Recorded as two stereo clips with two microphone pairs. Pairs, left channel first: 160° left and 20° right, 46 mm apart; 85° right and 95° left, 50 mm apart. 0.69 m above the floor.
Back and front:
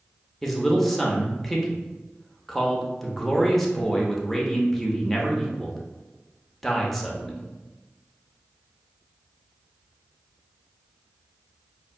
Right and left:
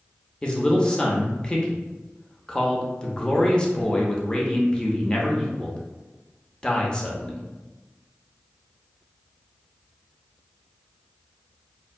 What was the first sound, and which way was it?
A man speaking, 120° right.